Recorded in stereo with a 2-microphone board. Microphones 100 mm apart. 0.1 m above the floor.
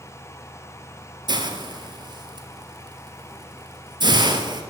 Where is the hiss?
45° right (ahead or behind), 0.9 m.